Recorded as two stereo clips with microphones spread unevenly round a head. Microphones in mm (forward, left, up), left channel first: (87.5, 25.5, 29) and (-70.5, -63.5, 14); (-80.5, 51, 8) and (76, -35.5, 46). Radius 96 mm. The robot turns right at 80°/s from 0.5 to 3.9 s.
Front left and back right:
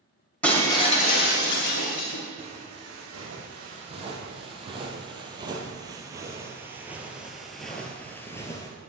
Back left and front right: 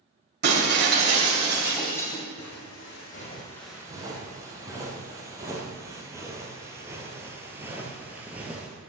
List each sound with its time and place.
0.4 s breaking glass: 50° right, 2.5 m; by 2.2 s 90° left, 2.5 m
2.4 s footsteps: 140° left, 3.5 m; by 8.7 s 10° left, 1.7 m